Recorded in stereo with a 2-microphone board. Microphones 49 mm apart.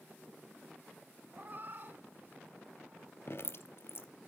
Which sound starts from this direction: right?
A cat meowing, at 1.3 s.